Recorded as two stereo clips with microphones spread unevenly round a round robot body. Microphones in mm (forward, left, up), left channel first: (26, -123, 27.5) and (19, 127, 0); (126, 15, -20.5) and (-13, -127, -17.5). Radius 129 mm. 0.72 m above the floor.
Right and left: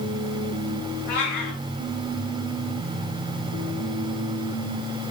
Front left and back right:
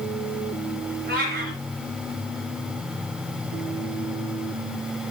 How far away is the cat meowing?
About 4.5 m.